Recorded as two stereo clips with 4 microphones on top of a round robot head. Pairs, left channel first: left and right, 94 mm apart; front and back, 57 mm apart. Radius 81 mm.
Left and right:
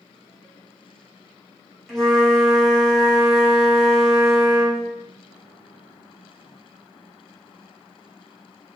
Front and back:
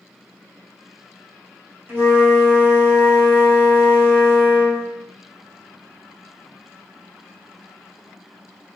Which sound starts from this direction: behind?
A flute, at 1.9 s.